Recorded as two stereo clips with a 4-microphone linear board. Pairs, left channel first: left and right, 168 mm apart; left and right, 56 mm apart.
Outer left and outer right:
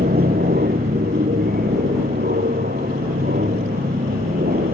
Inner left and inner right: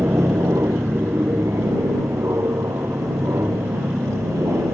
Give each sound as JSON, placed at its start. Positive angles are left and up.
{"t": 0.0, "sound": "an aircraft", "side_deg": -70}